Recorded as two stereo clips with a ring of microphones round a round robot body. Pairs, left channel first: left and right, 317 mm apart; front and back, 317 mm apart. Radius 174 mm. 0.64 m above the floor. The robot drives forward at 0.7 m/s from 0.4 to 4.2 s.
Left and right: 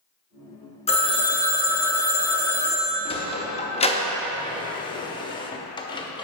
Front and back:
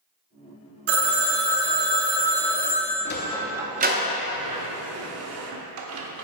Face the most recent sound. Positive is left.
turn(degrees=160)